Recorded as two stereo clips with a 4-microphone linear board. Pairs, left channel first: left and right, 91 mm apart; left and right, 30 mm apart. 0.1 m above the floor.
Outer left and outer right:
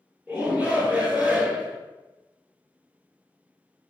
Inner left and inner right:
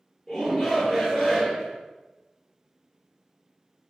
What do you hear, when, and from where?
0.3 s a shout: 15° right (ahead or behind), 1.5 m